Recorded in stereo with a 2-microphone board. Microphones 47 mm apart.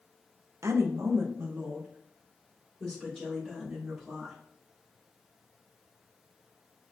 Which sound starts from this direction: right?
A woman speaking, at 0.6 s.